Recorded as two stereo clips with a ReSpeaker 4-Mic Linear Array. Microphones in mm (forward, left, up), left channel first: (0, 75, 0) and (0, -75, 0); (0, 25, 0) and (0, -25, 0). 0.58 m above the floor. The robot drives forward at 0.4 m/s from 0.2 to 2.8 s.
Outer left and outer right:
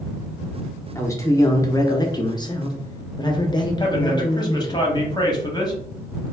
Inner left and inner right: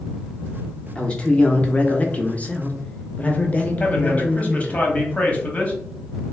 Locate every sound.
0.9 s a man speaking: 20° left (ahead or behind), 0.9 m; by 4.8 s 30° left (ahead or behind), 0.6 m
3.8 s a man speaking: 25° left (ahead or behind), 0.9 m